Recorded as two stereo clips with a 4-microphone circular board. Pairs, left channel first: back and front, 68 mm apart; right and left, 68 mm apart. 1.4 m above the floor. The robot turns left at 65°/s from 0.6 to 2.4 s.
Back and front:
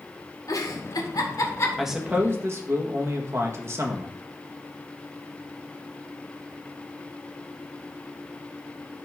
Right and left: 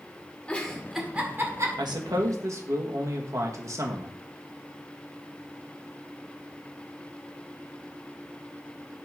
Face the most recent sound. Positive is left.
turn(degrees=50)